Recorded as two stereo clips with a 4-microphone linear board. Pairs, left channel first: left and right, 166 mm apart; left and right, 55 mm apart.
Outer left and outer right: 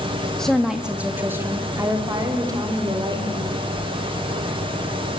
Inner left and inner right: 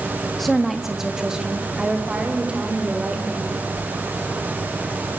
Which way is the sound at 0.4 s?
5° left (ahead or behind).